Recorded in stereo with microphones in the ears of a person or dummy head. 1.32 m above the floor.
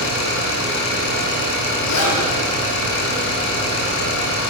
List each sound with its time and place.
0.0 s an engine running: 70° left (ahead or behind), 9.5 m
1.9 s a zipper: 80° left, 9 m